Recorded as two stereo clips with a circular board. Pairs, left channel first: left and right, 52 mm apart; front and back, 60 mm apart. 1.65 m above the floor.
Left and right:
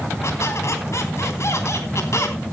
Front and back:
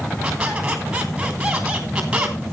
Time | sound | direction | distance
0.2 | a squeak | 105° left | 3.5 m